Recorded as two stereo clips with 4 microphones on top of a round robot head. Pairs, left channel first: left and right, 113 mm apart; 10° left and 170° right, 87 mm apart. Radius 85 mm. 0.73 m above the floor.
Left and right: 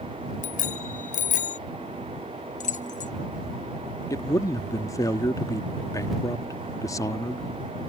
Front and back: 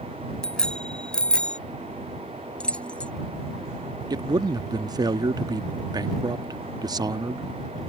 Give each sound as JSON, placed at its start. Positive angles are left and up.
{"t": 0.4, "sound": "a bicycle bell", "azimuth_deg": 90}
{"t": 2.6, "sound": "keys jangling", "azimuth_deg": 85}
{"t": 4.1, "sound": "a man speaking", "azimuth_deg": 150}